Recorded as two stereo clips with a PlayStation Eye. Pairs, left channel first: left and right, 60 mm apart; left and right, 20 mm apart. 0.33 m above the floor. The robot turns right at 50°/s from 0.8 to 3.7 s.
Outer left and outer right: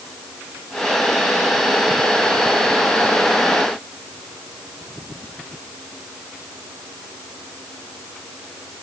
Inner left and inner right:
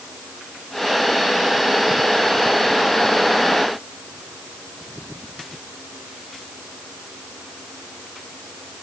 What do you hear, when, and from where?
Only background noise.